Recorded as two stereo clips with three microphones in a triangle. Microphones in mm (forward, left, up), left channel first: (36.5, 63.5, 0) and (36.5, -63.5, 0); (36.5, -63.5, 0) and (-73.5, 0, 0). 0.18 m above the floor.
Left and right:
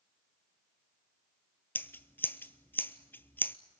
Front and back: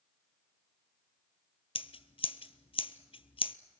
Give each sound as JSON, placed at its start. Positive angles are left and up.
{"t": 1.8, "sound": "scissors", "azimuth_deg": 15, "distance_m": 0.7}